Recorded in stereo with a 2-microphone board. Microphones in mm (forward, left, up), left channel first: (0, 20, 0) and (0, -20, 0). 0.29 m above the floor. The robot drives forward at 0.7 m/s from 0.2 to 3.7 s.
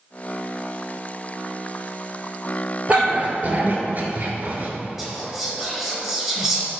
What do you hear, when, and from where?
2.9 s a dog barking: 30° right (ahead or behind), 1.7 m; by 4.7 s 45° right (ahead or behind), 1.2 m
5.0 s whispering: 10° right (ahead or behind), 1.4 m